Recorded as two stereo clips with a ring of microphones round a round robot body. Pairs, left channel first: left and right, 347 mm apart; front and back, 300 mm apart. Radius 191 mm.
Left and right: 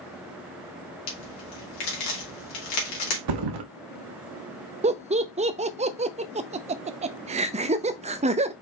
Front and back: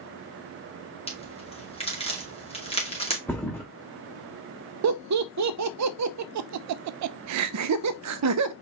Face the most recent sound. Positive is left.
turn(degrees=-160)